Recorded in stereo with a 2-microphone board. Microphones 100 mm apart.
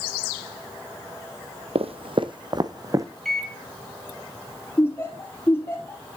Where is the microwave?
5° left (ahead or behind), 1.4 m.